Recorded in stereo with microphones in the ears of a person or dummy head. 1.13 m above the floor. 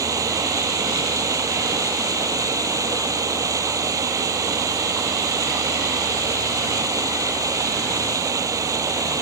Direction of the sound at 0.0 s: 20° right (ahead or behind).